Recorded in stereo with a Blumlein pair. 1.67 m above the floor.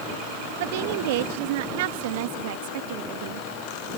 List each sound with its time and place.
0.6 s a woman speaking: 50° right